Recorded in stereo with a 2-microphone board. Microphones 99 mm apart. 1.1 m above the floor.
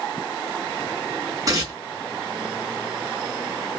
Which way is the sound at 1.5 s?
40° right (ahead or behind).